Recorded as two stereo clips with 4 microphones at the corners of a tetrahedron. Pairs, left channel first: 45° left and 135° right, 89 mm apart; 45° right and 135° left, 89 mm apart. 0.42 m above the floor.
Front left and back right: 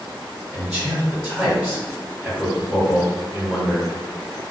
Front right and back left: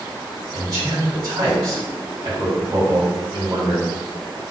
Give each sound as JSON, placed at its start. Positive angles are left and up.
{"t": 0.5, "sound": "a man speaking", "azimuth_deg": 150, "distance_m": 2.0}